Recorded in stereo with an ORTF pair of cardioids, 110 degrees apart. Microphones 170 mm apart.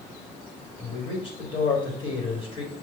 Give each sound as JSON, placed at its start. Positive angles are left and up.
{"t": 0.8, "sound": "a man speaking", "azimuth_deg": 35, "distance_m": 1.4}